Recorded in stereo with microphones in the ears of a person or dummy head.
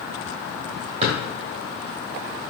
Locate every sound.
1.0 s a drawer: 35° right (ahead or behind), 1.5 m